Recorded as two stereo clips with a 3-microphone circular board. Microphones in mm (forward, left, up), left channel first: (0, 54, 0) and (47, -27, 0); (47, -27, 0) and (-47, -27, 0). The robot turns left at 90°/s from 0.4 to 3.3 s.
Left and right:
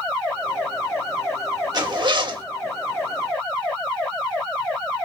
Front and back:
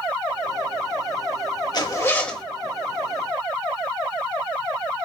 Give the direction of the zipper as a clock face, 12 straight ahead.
1 o'clock.